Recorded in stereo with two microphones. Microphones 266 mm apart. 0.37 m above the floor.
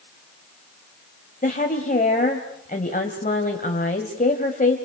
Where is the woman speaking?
30° left (ahead or behind), 2 m.